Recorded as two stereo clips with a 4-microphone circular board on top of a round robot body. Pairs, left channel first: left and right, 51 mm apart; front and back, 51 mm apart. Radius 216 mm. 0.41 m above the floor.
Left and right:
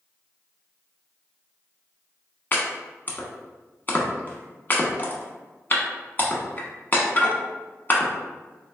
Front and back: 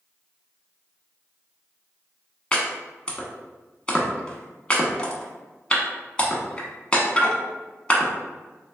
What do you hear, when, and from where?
2.5 s chopping: 65° left, 1.1 m